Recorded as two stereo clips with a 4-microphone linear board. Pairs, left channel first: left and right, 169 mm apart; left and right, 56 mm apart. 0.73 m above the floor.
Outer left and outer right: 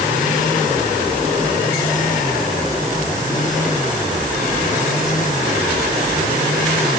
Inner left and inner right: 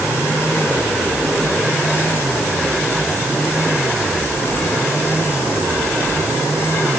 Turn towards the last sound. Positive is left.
No sound to turn to.